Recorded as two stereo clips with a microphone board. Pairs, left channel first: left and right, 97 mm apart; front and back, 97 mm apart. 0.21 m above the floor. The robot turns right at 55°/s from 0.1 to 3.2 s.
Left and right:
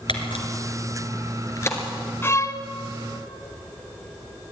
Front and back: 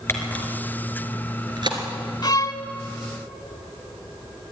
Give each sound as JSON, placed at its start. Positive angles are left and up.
{"t": 0.1, "sound": "a camera shutter", "azimuth_deg": 65, "distance_m": 3.0}
{"t": 2.2, "sound": "a violin", "azimuth_deg": 30, "distance_m": 1.1}